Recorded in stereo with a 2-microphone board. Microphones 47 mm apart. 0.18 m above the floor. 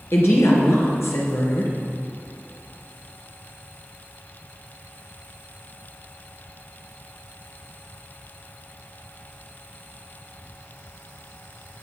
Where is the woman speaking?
60° left (ahead or behind), 3 m.